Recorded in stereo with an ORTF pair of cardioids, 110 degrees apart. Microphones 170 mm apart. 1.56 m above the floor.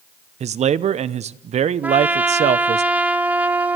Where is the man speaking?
40° right, 0.8 m.